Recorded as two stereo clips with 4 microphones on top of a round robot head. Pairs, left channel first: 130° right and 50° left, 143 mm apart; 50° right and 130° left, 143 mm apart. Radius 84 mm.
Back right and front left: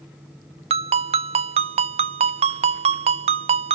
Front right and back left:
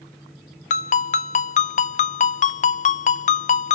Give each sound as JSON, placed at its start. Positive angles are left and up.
{"t": 0.7, "sound": "a ringtone", "azimuth_deg": -5, "distance_m": 0.6}